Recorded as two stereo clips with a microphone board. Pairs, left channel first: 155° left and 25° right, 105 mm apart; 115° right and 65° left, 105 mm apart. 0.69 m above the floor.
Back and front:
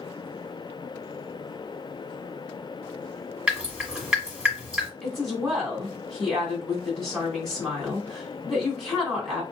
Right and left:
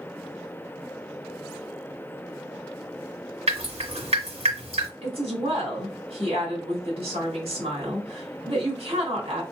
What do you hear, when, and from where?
3.5 s dripping: 60° left, 1.5 m
5.0 s a woman speaking: 70° left, 1.9 m